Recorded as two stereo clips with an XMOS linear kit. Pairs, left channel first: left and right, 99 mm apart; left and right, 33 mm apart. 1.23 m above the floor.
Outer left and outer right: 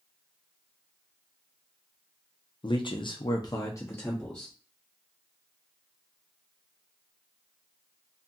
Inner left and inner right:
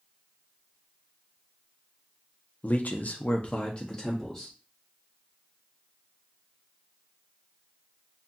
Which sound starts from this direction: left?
A man speaking, at 2.6 s.